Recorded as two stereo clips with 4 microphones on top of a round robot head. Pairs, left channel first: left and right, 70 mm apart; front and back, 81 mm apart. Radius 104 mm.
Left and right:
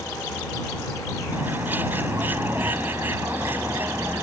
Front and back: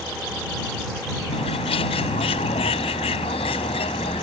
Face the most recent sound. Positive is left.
turn(degrees=-20)